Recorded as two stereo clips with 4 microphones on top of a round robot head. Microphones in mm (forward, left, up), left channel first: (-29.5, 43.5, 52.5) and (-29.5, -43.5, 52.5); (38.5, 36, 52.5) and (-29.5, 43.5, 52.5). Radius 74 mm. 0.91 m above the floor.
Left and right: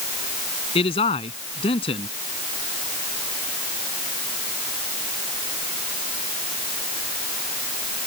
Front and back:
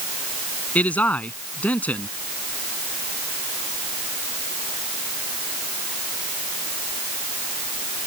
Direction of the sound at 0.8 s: 65° left.